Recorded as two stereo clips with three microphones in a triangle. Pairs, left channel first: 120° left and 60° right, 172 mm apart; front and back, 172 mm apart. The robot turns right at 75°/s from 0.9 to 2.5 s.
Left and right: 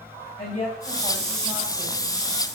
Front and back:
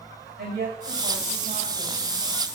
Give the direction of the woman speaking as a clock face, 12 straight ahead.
6 o'clock.